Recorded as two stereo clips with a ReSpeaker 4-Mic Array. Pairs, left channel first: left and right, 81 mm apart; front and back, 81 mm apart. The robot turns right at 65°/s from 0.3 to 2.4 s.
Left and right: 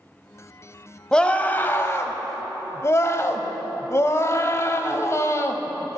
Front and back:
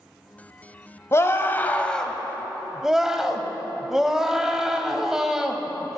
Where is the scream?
15° left, 1.1 m; by 6.0 s 100° left, 1.1 m.